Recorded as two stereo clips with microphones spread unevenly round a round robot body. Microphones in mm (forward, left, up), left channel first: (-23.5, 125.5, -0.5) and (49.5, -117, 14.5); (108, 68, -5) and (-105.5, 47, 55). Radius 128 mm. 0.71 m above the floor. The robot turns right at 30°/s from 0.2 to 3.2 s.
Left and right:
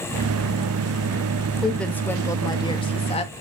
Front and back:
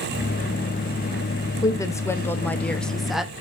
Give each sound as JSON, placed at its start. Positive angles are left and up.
{"t": 1.6, "sound": "a woman speaking", "azimuth_deg": 25, "distance_m": 1.0}